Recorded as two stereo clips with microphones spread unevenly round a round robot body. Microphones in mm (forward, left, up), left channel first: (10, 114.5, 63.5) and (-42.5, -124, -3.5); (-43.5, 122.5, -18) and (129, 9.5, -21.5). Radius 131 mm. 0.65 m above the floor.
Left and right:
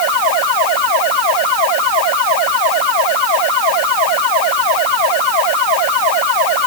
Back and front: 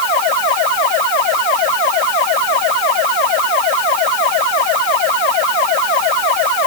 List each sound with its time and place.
Only background noise.